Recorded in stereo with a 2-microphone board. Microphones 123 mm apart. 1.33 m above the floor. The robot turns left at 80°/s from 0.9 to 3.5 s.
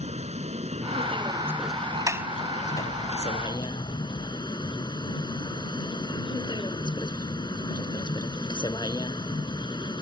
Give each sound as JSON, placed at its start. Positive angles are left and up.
{"t": 0.0, "sound": "a vehicle", "azimuth_deg": -115}
{"t": 2.1, "sound": "a sliding door", "side_deg": -25}